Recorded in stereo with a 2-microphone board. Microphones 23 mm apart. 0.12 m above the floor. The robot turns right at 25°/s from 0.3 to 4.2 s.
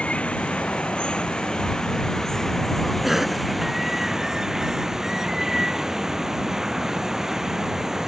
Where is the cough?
15° right (ahead or behind); by 3.4 s 10° right (ahead or behind).